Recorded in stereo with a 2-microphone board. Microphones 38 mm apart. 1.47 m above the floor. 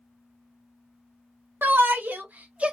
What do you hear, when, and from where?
1.6 s a shout: 65° right (ahead or behind), 1.2 m; by 2.7 s 30° right (ahead or behind), 0.7 m